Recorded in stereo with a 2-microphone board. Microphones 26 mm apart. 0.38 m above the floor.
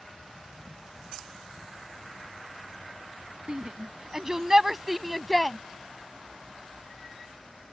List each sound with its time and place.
3.5 s a shout: 35° right (ahead or behind); by 5.6 s 5° left (ahead or behind)